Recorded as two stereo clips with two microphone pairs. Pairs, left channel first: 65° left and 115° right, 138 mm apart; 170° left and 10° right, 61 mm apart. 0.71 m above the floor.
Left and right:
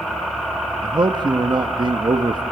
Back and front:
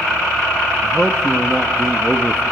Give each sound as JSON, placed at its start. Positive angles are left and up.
{"t": 0.8, "sound": "a man speaking", "azimuth_deg": -105, "distance_m": 0.8}